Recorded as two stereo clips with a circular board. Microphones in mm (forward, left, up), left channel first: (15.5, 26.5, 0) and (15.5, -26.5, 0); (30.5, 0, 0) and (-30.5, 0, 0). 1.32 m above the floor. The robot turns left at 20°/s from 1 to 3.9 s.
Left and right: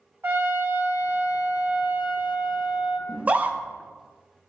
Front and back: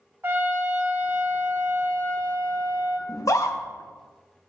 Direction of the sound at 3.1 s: 25° right.